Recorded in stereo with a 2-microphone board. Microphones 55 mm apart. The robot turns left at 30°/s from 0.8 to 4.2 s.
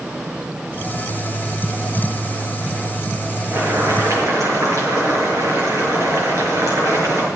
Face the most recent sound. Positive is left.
turn(degrees=-65)  # may be behind; listen again after turning